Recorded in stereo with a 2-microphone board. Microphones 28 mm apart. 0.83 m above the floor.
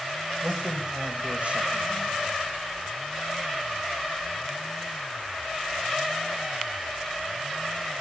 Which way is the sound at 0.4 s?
50° right (ahead or behind).